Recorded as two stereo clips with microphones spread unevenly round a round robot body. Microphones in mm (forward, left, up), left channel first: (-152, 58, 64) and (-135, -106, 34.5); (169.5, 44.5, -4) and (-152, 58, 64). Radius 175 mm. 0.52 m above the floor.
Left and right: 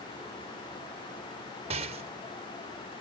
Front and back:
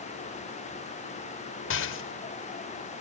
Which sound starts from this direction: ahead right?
A rattle, at 1.7 s.